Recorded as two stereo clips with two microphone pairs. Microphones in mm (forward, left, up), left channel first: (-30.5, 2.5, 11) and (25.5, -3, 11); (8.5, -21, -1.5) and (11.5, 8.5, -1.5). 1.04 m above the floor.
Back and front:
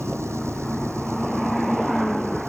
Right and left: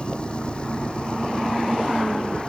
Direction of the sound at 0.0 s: 40° right.